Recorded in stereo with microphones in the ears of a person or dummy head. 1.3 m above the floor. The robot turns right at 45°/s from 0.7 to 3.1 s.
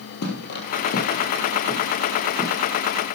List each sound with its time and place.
0.2 s footsteps: 50° left (ahead or behind), 2.5 m; by 2.6 s 20° right (ahead or behind), 3.5 m